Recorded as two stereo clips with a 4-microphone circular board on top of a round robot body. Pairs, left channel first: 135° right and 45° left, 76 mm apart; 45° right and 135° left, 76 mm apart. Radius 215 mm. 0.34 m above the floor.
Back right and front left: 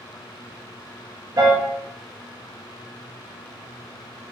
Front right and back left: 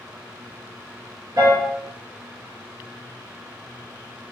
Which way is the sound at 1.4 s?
85° left.